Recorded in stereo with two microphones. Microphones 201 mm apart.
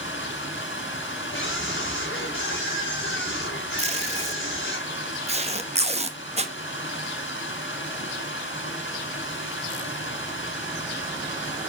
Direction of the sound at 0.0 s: 70° left (ahead or behind).